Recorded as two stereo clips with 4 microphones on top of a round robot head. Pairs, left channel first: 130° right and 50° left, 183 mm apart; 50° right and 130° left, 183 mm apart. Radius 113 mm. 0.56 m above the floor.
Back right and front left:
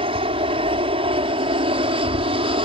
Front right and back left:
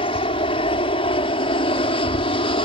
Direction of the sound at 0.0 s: Straight ahead.